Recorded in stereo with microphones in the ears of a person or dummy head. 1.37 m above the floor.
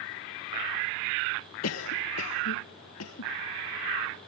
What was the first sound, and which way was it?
A cough, 85° left.